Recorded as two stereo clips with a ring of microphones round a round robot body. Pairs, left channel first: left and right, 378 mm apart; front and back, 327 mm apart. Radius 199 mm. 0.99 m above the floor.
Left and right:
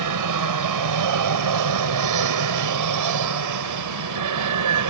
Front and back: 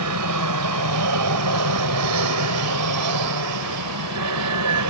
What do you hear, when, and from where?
0.0 s an aircraft: 130° right; by 4.9 s 135° right